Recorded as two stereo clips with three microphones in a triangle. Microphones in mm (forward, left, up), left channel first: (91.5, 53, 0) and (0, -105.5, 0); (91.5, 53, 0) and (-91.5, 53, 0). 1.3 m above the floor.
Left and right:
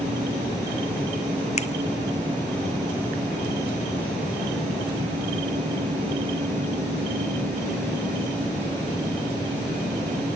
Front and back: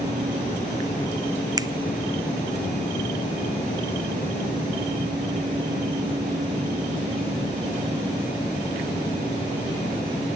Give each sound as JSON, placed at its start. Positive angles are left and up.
{"t": 1.6, "sound": "a finger snap", "azimuth_deg": 110, "distance_m": 0.6}